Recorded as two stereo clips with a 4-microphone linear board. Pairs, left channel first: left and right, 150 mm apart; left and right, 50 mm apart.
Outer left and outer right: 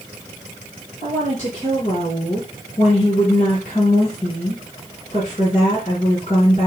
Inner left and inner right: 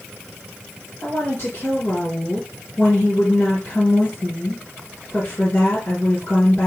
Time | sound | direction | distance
1.0 | a woman speaking | 40° left (ahead or behind) | 3.5 m